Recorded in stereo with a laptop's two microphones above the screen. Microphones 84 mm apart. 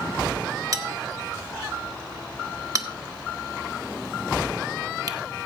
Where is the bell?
45° right (ahead or behind), 1.3 m.